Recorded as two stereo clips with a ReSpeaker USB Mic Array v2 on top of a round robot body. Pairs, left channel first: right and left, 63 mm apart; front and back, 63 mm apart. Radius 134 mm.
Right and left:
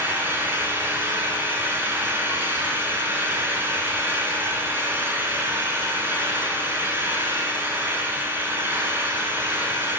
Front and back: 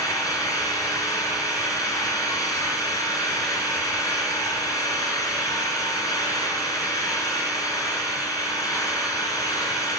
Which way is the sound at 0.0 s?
35° left.